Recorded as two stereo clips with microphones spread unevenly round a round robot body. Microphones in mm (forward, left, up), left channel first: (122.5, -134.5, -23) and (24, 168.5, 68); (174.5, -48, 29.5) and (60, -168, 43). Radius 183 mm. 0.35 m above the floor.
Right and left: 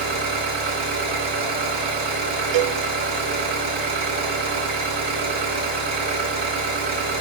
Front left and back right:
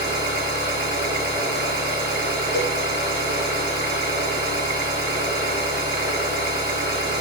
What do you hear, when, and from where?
0.0 s an engine running: 175° right, 1.7 m
2.5 s a cowbell: 75° left, 0.7 m